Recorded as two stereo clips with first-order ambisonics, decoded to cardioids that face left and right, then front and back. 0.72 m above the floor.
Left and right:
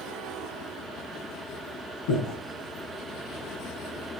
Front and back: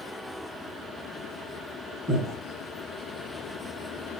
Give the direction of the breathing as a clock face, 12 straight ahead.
9 o'clock.